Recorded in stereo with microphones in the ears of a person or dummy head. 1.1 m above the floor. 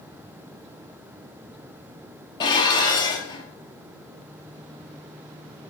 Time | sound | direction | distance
2.4 | dishes clattering | 20° left (ahead or behind) | 0.5 m